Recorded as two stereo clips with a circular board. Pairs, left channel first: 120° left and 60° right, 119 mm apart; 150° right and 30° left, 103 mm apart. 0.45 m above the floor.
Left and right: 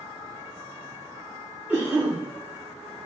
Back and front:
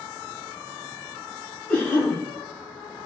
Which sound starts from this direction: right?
A cough, at 1.7 s.